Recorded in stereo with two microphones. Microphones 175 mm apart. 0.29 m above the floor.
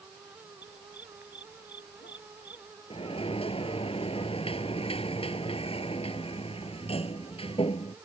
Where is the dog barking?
80° left.